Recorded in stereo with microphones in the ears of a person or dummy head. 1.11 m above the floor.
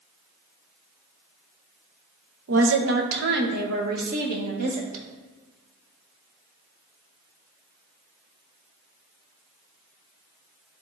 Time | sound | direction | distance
2.5 | a woman speaking | 70° right (ahead or behind) | 0.9 m